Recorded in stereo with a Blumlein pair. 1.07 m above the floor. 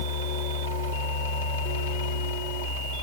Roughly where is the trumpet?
I don't hear a trumpet.